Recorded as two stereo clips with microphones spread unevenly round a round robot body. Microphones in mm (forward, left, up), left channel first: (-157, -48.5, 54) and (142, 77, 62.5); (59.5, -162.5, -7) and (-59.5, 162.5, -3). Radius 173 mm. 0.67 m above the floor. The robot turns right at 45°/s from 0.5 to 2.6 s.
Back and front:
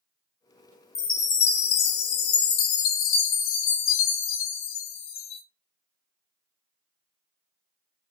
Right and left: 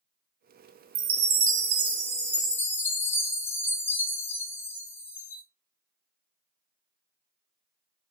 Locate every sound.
0.9 s a chime: 130° left, 0.6 m; by 5.4 s 155° right, 0.6 m